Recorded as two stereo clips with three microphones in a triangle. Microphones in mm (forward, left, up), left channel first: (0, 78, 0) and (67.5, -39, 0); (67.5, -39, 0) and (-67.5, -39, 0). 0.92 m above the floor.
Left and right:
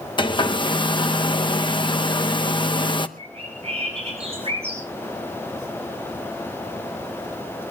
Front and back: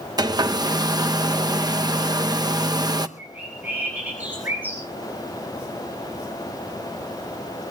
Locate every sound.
0.2 s a hair dryer: 140° left, 0.7 m
3.2 s a bird: 100° right, 8 m